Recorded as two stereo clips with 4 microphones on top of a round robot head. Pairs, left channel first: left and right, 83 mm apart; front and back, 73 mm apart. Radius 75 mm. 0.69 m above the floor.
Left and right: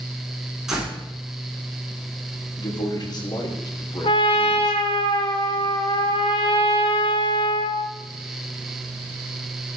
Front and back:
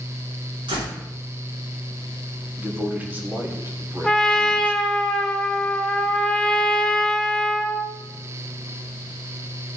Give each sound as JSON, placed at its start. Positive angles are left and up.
{"t": 0.7, "sound": "a door slam", "azimuth_deg": -175, "distance_m": 5.5}
{"t": 2.6, "sound": "a man speaking", "azimuth_deg": 115, "distance_m": 3.0}
{"t": 4.0, "sound": "a trumpet", "azimuth_deg": 80, "distance_m": 1.7}